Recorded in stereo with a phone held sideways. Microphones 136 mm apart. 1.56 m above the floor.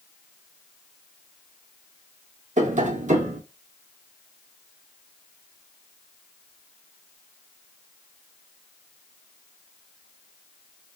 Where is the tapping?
60° right (ahead or behind), 0.5 m.